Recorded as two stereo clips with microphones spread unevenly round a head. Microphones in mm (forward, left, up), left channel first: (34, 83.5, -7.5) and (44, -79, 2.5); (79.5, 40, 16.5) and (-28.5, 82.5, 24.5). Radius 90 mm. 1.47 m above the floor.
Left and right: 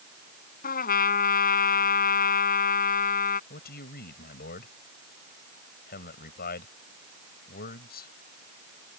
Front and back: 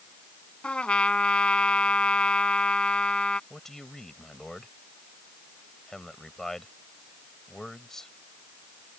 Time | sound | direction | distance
0.6 | a trumpet | 60° left | ?
3.5 | a man speaking | 65° left | ?